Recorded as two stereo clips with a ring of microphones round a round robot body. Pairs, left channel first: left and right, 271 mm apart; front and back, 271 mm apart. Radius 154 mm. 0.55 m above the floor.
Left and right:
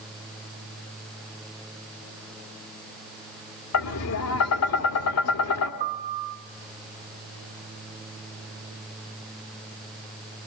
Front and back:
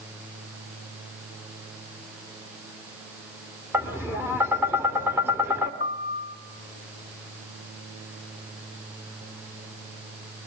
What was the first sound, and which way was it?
Tapping, 100° left.